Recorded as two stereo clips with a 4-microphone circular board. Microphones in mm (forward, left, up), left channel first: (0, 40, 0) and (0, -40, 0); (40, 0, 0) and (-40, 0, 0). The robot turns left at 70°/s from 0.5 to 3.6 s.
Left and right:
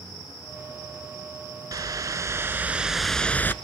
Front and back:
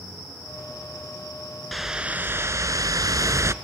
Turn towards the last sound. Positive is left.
turn(degrees=140)